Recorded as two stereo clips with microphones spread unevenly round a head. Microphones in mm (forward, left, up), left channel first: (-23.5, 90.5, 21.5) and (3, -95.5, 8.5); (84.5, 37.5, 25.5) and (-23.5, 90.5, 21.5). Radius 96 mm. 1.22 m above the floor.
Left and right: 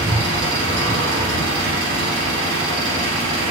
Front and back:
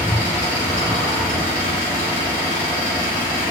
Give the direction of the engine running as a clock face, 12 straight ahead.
2 o'clock.